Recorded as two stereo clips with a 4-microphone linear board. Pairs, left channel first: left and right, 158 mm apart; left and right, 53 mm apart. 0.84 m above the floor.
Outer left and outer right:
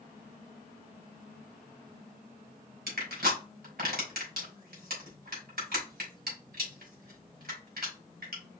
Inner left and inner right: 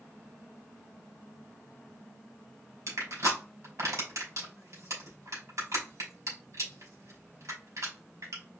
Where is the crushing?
85° right, 3 m.